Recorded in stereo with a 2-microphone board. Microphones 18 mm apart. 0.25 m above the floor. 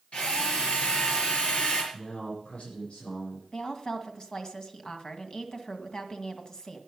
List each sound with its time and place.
0.1 s a drill: 75° left (ahead or behind), 4.5 m
1.9 s a man speaking: 70° left (ahead or behind), 8 m
3.5 s a woman speaking: 40° left (ahead or behind), 2.0 m